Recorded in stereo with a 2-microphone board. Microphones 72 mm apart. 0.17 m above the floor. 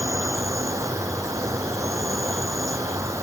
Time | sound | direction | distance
0.0 | an insect | 45° right (ahead or behind) | ?